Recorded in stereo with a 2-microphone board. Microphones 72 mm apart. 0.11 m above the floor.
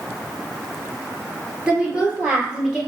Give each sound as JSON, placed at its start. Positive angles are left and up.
{"t": 1.7, "sound": "a woman speaking", "side_deg": -15, "distance_m": 1.5}